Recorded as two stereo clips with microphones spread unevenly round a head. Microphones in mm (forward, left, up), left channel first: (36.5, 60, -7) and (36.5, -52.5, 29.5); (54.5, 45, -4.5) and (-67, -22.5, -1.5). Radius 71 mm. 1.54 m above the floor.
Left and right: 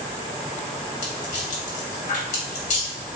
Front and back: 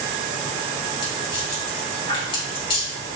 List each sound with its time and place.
1.0 s a rattle: 75° left, 2 m